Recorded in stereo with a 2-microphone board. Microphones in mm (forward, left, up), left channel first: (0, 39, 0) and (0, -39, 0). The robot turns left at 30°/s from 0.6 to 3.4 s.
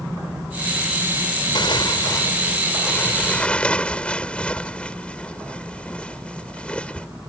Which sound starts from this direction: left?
Tearing paper, at 1.6 s.